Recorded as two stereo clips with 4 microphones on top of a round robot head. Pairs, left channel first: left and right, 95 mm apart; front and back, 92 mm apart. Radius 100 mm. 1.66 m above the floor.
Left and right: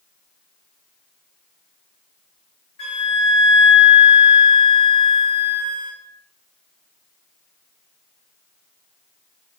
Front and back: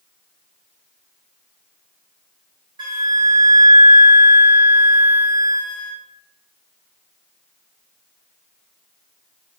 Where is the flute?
140° left, 0.5 m.